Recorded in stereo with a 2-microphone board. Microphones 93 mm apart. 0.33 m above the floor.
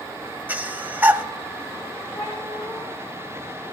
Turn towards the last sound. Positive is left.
turn(degrees=40)  # may be behind; listen again after turning